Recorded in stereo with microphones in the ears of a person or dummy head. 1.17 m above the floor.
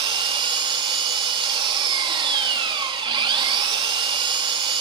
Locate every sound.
0.0 s an engine running: 25° right (ahead or behind), 1.3 m